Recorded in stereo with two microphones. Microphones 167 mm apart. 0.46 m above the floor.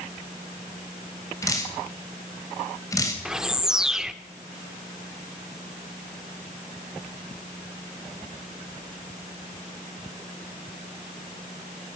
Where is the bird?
5° right (ahead or behind), 0.7 m.